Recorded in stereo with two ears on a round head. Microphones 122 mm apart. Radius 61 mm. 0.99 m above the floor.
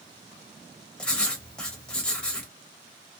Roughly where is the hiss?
No hiss in this recording.